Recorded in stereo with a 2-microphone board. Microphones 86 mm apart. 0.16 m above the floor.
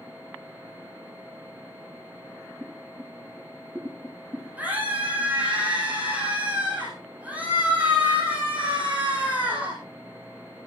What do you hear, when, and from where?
2.6 s boiling: 10° right (ahead or behind), 7.5 m
4.6 s a scream: 15° right (ahead or behind), 8 m